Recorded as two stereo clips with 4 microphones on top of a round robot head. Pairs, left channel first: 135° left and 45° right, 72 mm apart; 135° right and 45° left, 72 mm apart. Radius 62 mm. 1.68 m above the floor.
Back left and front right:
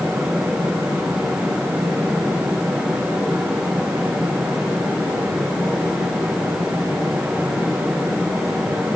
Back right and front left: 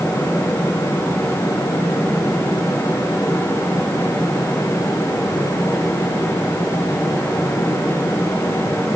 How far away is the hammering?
No hammering in this recording.